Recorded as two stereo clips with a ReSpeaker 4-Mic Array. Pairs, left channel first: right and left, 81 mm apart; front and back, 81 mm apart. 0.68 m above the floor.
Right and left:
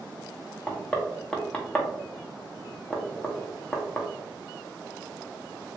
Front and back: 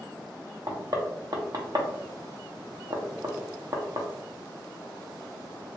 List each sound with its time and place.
0.7 s knocking: 165° right, 0.7 m